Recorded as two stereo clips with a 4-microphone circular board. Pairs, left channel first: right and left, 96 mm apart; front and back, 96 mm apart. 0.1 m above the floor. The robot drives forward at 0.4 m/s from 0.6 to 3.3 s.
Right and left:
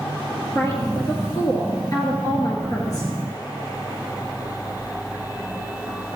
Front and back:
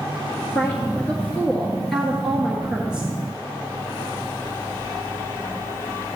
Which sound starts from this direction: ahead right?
A woman speaking, at 0.6 s.